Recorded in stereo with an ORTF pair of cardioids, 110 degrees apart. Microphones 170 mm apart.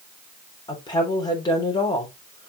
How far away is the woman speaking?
About 3.5 m.